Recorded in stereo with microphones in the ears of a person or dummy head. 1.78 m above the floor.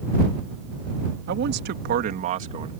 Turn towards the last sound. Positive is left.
turn(degrees=-35)  # may be behind; listen again after turning